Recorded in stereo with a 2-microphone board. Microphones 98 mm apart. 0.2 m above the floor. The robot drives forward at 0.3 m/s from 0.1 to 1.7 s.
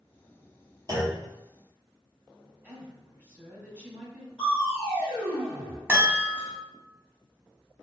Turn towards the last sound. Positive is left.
turn(degrees=-25)  # may be behind; listen again after turning